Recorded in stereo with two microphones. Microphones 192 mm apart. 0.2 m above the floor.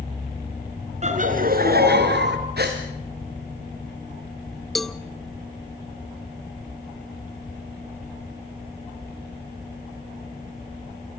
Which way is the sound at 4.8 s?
Centre (ahead or behind).